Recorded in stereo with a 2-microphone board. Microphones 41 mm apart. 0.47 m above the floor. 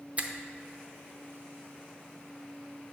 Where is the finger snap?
30° right (ahead or behind), 0.6 m.